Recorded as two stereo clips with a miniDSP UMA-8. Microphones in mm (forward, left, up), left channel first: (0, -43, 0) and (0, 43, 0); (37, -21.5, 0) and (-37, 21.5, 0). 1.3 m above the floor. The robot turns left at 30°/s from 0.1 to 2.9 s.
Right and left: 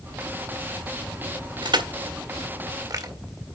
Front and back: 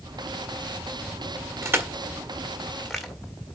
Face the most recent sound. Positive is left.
turn(degrees=60)